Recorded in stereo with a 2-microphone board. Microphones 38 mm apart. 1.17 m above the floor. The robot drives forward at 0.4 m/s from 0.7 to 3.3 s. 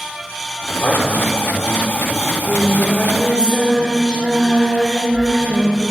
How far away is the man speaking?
About 3.5 m.